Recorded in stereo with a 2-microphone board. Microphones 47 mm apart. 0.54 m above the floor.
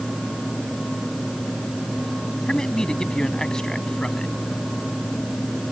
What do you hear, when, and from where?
2.5 s a man speaking: 15° left (ahead or behind)